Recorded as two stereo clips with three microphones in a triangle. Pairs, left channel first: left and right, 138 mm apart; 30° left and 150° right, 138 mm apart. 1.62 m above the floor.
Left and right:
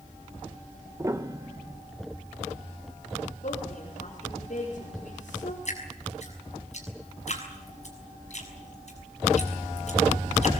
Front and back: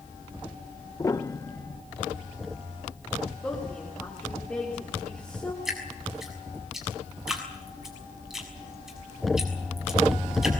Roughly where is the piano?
Ahead right.